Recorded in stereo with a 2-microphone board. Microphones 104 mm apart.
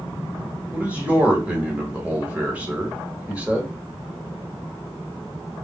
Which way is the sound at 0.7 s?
15° right (ahead or behind).